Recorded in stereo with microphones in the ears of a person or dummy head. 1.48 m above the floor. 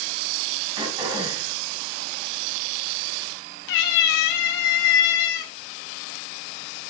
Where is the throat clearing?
30° right (ahead or behind), 4 m.